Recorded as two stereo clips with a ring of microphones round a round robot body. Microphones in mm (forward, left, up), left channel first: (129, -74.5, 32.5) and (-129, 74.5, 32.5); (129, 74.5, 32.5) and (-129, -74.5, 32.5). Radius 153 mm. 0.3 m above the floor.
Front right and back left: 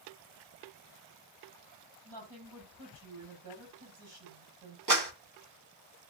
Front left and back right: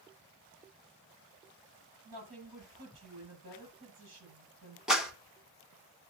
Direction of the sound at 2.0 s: 170° left.